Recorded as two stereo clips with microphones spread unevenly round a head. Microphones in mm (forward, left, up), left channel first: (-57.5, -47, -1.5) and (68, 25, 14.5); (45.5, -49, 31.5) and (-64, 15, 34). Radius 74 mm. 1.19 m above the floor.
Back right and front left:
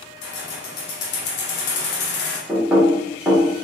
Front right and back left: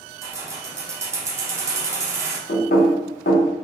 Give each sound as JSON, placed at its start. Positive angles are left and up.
{"t": 0.2, "sound": "keys jangling", "azimuth_deg": -140, "distance_m": 0.8}
{"t": 2.5, "sound": "knocking", "azimuth_deg": -50, "distance_m": 0.9}